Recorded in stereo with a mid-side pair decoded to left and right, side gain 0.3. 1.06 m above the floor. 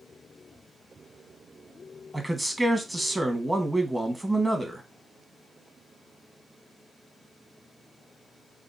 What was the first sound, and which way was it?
A man speaking, 20° right.